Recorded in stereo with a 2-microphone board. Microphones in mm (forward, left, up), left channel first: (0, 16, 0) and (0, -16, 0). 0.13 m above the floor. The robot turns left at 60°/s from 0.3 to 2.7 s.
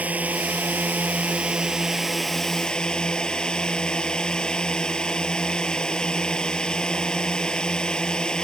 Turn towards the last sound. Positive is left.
turn(degrees=150)